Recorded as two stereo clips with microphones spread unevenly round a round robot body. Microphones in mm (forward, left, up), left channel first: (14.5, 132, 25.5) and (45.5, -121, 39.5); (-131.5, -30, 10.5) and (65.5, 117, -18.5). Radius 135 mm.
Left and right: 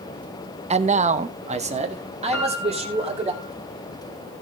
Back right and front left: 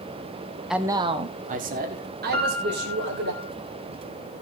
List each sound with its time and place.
0.7 s a man speaking: 40° right, 0.7 m; by 3.3 s 15° right, 3.5 m
2.3 s a piano: 150° left, 5 m